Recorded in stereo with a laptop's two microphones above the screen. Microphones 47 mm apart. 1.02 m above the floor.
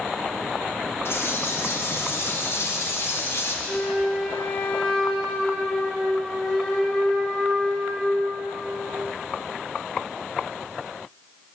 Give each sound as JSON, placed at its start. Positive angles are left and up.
{"t": 1.1, "sound": "a bird", "side_deg": 55, "distance_m": 0.7}
{"t": 3.6, "sound": "a flute", "side_deg": 15, "distance_m": 1.1}